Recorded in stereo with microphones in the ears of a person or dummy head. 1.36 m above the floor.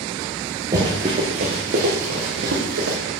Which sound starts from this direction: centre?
Running footsteps, at 0.7 s.